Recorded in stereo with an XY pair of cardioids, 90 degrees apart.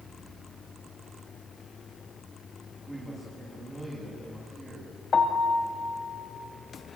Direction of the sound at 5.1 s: 45° left.